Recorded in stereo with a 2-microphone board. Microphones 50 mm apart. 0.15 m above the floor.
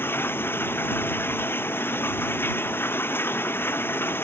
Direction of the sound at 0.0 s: 45° left (ahead or behind).